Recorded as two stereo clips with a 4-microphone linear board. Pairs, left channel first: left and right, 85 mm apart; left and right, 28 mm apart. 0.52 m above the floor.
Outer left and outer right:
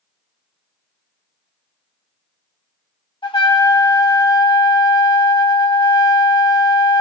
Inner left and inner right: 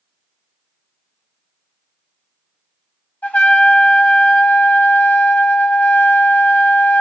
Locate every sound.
3.2 s a trumpet: 85° left, 1.4 m